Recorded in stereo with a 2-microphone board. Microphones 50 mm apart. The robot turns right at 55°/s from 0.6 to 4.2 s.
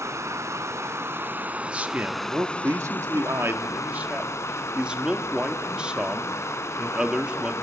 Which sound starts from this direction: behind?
A man speaking, at 1.7 s.